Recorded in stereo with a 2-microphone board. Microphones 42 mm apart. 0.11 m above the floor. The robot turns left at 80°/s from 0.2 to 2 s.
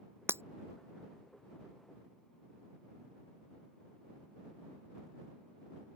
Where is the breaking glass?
80° right.